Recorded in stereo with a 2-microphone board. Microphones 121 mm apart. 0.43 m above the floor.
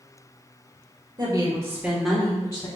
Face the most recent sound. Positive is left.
turn(degrees=35)  # may be behind; listen again after turning